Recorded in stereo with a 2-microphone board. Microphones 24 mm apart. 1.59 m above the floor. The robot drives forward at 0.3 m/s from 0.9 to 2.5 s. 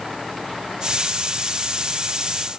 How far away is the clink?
I don't hear a clink.